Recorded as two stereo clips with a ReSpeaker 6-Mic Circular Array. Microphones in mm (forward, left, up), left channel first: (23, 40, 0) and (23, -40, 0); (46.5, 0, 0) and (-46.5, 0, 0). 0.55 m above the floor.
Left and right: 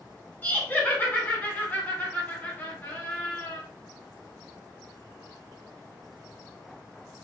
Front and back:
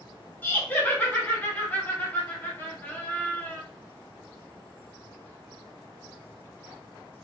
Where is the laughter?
50° left, 1.1 m.